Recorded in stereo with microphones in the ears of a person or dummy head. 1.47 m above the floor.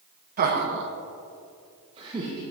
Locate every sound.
0.4 s laughter: 40° right (ahead or behind), 1.1 m; by 2.4 s 20° right (ahead or behind), 1.4 m